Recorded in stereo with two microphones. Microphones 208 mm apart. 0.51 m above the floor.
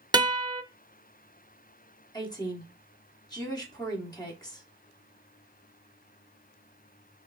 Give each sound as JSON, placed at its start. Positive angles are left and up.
{"t": 0.1, "sound": "a guitar", "side_deg": -20, "distance_m": 0.5}
{"t": 2.1, "sound": "a woman speaking", "side_deg": 20, "distance_m": 1.2}